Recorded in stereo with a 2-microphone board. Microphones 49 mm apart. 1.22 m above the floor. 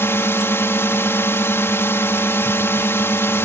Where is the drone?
60° left (ahead or behind).